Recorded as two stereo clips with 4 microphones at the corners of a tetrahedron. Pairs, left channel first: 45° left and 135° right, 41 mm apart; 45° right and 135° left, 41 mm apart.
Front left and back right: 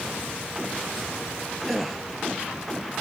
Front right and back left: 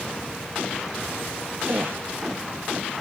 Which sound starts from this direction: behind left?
A gasp, at 1.7 s.